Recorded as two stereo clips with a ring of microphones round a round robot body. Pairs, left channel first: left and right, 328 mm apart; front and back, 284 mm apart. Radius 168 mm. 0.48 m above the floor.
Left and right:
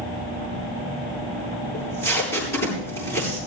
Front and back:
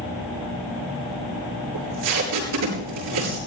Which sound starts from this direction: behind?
Tape being pulled, at 1.7 s.